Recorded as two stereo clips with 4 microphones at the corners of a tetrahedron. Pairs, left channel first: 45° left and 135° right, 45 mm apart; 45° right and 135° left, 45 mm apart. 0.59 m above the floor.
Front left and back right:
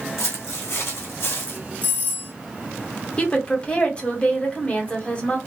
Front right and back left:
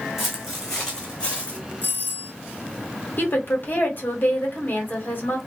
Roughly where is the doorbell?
Ahead.